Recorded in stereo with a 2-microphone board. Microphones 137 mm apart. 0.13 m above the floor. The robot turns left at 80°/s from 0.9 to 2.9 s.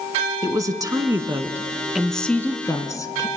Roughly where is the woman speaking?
Right.